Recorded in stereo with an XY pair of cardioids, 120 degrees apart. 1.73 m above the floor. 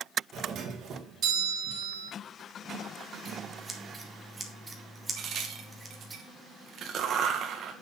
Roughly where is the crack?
Ahead right.